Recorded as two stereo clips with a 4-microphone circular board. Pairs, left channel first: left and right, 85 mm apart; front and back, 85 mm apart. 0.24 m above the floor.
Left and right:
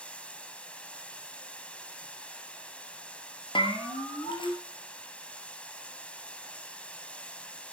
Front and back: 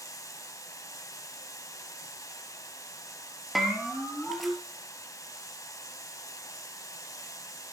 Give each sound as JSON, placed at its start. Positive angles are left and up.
{"t": 0.0, "sound": "running water", "azimuth_deg": 20, "distance_m": 1.3}
{"t": 3.5, "sound": "a bell", "azimuth_deg": 90, "distance_m": 2.5}